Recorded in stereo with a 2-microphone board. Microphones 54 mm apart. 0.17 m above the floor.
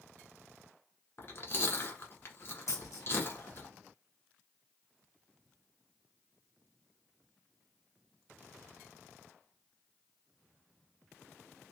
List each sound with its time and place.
1.2 s chewing: 50° left (ahead or behind), 1.2 m
2.7 s a dropped coin: 80° left, 2 m